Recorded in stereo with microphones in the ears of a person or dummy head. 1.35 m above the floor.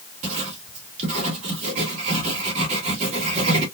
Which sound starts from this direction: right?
Writing, at 0.2 s.